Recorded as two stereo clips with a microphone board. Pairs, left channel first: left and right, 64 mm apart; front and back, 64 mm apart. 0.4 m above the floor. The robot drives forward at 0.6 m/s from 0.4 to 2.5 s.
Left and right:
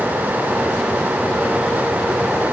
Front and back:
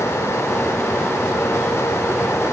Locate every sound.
Only background noise.